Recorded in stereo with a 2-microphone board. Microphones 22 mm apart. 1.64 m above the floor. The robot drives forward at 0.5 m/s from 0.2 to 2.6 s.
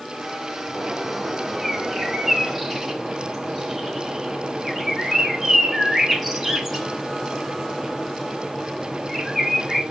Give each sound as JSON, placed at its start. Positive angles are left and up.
{"t": 0.7, "sound": "a bird", "side_deg": 5, "distance_m": 3.0}